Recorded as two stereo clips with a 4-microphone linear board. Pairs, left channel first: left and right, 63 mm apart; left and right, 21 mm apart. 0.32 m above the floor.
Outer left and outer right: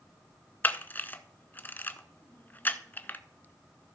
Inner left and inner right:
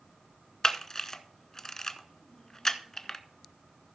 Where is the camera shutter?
30° left (ahead or behind), 0.7 m.